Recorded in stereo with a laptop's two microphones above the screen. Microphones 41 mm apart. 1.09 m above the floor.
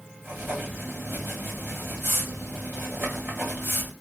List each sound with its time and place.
0.2 s writing: 50° right (ahead or behind), 1.5 m